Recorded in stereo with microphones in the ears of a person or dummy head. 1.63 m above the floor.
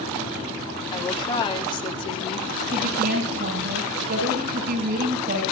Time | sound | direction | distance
0.9 | a woman speaking | 25° left (ahead or behind) | 4 m
2.7 | a woman speaking | 55° right (ahead or behind) | 7 m